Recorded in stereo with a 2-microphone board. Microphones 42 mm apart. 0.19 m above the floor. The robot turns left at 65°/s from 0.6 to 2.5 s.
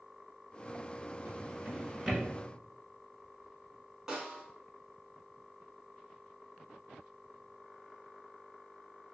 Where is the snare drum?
15° right (ahead or behind), 0.9 m.